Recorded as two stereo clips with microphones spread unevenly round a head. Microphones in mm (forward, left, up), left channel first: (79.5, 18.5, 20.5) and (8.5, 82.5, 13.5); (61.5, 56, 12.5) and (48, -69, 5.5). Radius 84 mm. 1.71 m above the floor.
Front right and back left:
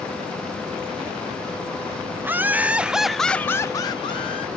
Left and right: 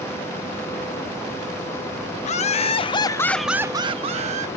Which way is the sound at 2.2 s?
70° left.